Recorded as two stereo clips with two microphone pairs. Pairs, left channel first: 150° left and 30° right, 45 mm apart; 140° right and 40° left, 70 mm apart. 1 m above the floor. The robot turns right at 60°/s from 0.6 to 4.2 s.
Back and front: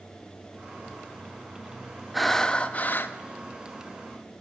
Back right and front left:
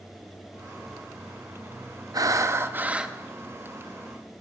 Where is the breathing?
60° left, 0.5 m; by 3.2 s 120° left, 0.5 m.